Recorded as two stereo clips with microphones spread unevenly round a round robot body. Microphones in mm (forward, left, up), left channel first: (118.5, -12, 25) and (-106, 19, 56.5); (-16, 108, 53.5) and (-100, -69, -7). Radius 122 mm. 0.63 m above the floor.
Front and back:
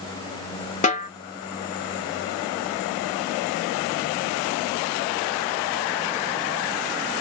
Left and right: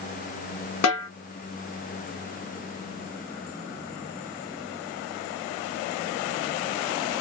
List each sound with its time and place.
0.8 s a snare drum: 50° left, 0.9 m